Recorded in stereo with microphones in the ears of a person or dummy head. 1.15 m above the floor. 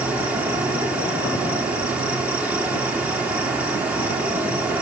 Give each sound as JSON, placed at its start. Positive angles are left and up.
{"t": 0.0, "sound": "an insect", "side_deg": -5, "distance_m": 4.0}